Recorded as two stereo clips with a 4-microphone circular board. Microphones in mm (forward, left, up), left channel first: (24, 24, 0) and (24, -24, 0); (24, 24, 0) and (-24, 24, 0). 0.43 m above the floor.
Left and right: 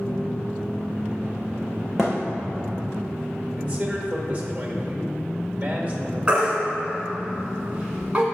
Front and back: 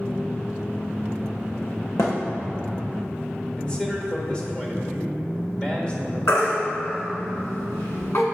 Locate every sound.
2.0 s a thud: straight ahead, 1.9 m
3.6 s a man speaking: 55° right, 1.3 m
6.3 s a baby crying: 20° right, 1.6 m